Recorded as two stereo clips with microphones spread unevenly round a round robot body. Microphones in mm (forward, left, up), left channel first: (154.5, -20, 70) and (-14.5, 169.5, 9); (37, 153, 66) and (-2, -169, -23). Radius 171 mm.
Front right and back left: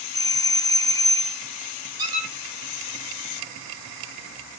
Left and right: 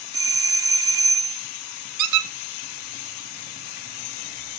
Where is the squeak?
145° right, 1.0 m.